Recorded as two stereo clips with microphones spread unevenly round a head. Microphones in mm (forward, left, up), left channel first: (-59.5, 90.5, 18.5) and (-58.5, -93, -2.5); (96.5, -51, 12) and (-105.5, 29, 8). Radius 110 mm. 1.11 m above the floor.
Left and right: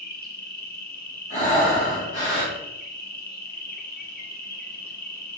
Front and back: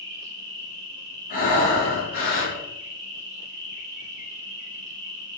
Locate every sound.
0.0 s an insect: 125° left, 0.9 m
1.3 s breathing: 30° left, 1.1 m